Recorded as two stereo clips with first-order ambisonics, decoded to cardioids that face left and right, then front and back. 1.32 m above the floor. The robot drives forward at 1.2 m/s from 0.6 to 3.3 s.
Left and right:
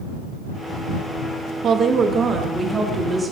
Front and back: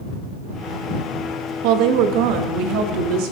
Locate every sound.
1.6 s a woman speaking: 150° right, 1.4 m; by 3.3 s 170° right, 3.5 m